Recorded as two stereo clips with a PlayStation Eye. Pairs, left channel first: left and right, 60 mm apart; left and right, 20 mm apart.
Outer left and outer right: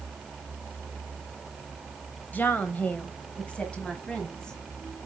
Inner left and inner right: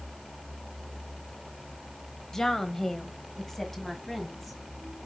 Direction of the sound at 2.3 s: 30° left (ahead or behind).